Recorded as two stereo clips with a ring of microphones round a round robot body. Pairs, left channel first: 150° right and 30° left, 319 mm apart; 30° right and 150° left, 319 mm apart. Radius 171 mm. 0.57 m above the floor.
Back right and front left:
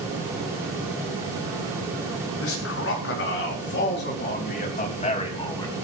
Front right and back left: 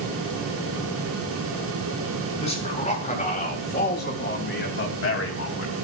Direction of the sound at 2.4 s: 100° right.